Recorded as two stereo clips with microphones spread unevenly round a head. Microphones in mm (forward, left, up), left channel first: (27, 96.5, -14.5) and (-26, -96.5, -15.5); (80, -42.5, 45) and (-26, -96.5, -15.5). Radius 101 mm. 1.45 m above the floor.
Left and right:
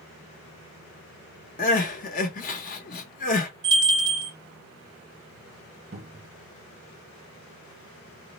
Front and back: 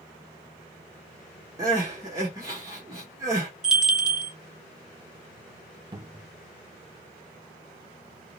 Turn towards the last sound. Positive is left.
turn(degrees=-85)